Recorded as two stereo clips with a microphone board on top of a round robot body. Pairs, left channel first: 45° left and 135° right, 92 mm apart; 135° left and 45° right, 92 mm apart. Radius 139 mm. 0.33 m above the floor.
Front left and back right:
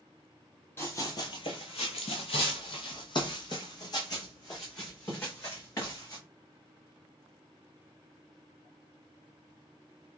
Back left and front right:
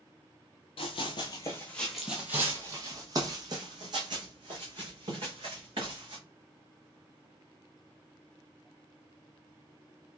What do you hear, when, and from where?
0.8 s running footsteps: 110° left, 0.7 m; by 6.2 s 10° right, 2.5 m